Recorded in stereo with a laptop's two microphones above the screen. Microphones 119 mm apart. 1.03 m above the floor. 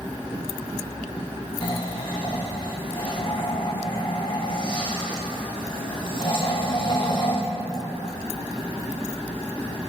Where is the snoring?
40° left (ahead or behind), 1.6 m.